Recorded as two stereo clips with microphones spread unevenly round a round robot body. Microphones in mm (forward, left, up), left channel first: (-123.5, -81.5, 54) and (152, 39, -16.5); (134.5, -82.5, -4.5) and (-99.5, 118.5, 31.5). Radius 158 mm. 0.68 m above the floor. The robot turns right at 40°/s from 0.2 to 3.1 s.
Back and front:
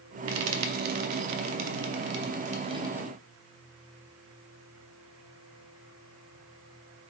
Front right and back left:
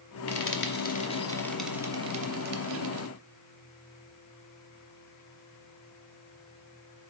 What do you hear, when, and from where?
0.3 s frying: 5° right, 0.6 m; by 3.1 s 105° left, 0.6 m